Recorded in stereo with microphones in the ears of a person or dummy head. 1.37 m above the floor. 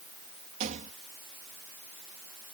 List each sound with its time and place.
0.6 s a rattle: 40° right (ahead or behind)